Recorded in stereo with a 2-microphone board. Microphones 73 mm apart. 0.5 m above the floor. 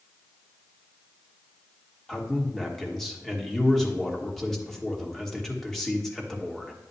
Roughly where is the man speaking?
Centre.